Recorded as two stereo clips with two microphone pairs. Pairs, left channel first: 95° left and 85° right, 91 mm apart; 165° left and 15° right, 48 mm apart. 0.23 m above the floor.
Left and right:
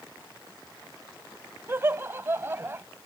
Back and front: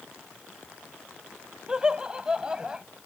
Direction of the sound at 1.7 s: 70° right.